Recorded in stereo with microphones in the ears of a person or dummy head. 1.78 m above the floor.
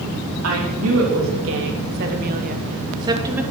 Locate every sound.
0.4 s a woman speaking: 85° right, 4.5 m; by 3.4 s 15° right (ahead or behind), 2.5 m